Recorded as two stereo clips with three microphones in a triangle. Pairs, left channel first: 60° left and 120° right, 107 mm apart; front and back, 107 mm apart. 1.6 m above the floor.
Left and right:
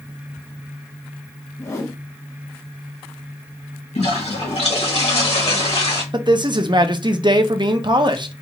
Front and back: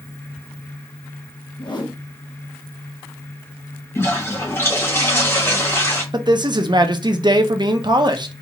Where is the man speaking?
150° right, 0.6 m.